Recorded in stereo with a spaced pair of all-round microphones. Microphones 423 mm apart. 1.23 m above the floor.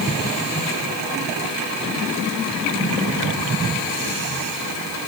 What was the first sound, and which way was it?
Only background noise.